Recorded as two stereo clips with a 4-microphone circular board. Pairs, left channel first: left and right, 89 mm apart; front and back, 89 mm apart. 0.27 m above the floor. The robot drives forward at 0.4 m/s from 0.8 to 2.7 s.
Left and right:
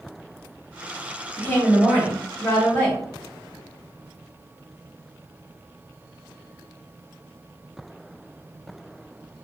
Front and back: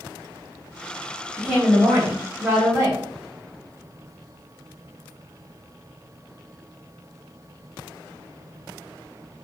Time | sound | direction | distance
1.4 | a woman speaking | 110° left | 1.0 m